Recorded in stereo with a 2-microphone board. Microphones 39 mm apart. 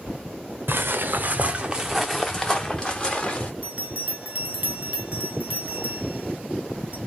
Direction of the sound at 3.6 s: 40° right (ahead or behind).